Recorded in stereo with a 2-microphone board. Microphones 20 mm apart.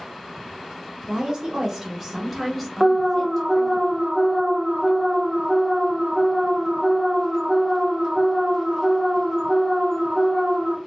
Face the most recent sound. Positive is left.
turn(degrees=-30)  # may be behind; listen again after turning